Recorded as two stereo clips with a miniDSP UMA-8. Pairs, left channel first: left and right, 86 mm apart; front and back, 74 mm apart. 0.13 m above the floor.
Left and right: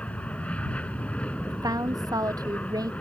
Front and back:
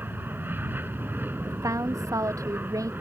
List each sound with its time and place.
0.0 s an aircraft: 155° left
1.5 s a woman speaking: 135° right